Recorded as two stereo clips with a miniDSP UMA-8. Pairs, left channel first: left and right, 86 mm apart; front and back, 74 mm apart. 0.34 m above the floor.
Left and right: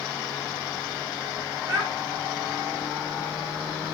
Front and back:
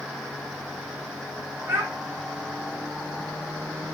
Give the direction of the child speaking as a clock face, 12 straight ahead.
4 o'clock.